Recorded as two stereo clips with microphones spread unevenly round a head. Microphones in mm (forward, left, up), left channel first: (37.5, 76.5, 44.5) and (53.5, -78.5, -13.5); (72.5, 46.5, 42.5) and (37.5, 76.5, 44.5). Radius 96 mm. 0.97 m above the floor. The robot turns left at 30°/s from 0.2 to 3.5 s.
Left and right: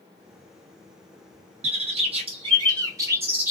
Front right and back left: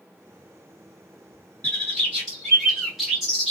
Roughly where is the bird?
Right.